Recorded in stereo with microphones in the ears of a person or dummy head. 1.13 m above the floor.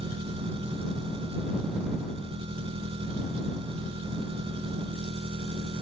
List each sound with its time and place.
0.0 s an engine running: 35° right (ahead or behind)